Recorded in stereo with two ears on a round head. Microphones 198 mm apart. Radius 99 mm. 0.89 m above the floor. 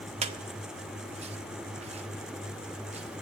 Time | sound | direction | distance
0.2 | a squeak | 30° right (ahead or behind) | 0.7 m